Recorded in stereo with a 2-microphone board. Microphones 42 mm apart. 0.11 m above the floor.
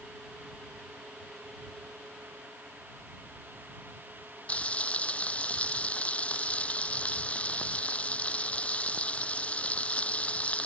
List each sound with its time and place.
4.5 s frying: 30° left (ahead or behind)